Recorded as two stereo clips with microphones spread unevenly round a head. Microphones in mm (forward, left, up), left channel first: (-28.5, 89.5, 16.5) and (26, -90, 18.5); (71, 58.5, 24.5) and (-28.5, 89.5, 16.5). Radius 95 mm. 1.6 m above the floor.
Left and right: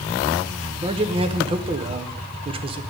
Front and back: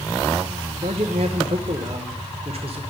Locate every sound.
0.8 s a man speaking: 135° right, 0.9 m